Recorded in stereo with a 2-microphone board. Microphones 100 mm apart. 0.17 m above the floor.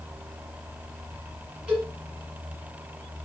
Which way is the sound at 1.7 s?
5° right (ahead or behind).